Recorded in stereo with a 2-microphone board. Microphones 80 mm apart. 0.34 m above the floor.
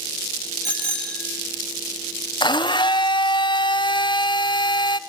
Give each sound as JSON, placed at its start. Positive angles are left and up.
{"t": 0.6, "sound": "a bicycle bell", "side_deg": 15, "distance_m": 5.5}
{"t": 2.4, "sound": "a blender", "side_deg": 70, "distance_m": 0.7}